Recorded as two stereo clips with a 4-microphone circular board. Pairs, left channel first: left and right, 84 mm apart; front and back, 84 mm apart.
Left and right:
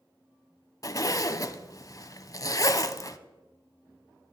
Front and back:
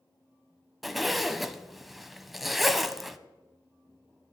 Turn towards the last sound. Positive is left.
turn(degrees=90)